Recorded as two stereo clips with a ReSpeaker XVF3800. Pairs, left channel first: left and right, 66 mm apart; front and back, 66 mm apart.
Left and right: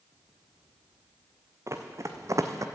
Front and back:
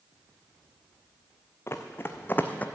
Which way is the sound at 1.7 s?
50° right.